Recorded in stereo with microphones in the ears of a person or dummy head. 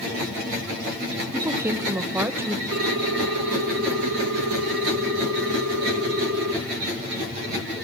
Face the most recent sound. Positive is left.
turn(degrees=-70)  # may be behind; listen again after turning